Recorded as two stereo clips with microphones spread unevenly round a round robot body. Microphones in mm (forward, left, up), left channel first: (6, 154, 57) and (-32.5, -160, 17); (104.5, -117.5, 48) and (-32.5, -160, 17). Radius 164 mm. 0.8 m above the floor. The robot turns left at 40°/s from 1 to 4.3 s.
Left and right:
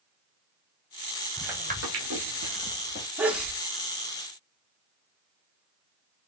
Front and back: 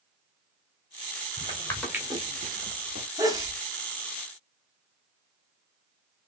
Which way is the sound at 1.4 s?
5° left.